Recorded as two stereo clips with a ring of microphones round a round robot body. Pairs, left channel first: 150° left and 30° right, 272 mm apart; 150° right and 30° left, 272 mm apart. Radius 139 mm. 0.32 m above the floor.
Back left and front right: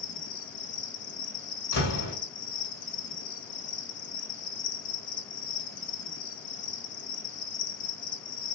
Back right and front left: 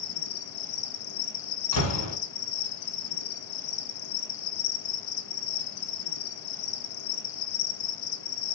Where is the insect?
145° right, 0.9 m.